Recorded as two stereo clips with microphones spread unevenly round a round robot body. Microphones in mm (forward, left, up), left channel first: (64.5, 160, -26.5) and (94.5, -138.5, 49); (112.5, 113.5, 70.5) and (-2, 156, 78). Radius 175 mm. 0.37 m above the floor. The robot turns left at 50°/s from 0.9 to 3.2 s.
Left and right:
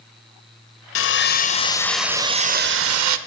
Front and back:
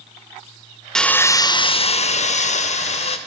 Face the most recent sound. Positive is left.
turn(degrees=-50)